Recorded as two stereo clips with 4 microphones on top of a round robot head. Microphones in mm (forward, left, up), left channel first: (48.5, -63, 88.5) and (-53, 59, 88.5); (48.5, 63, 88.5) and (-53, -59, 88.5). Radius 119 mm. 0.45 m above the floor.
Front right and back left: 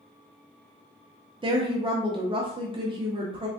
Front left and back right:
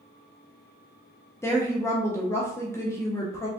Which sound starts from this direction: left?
A woman speaking, at 1.4 s.